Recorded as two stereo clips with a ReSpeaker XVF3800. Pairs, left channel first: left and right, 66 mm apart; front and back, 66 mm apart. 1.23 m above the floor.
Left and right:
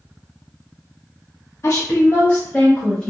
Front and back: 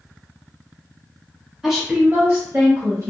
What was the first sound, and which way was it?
A woman speaking, 100° left.